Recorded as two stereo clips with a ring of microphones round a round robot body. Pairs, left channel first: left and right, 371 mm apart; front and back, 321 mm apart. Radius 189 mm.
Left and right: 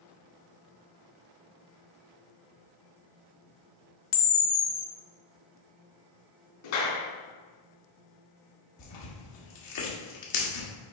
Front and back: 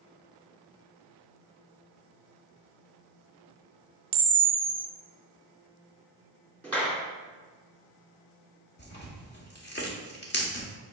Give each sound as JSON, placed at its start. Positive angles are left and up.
{"t": 4.1, "sound": "a camera shutter", "azimuth_deg": 115, "distance_m": 0.6}
{"t": 6.6, "sound": "a clap", "azimuth_deg": 85, "distance_m": 2.5}
{"t": 8.8, "sound": "tearing paper", "azimuth_deg": 60, "distance_m": 1.7}